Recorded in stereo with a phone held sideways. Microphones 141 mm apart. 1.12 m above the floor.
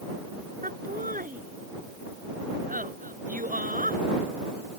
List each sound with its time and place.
0.6 s laughter: 75° right (ahead or behind)